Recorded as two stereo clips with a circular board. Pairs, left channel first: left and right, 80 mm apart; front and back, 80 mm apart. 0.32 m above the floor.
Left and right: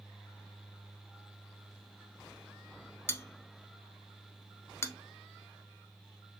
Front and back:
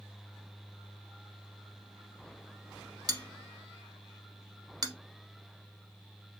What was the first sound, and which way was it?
A bell, 145° left.